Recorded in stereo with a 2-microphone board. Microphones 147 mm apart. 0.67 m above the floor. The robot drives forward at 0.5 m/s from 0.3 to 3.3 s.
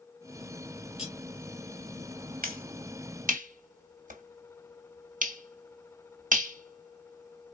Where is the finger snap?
75° right (ahead or behind), 1.4 m; by 7.5 s 70° right (ahead or behind), 1.5 m.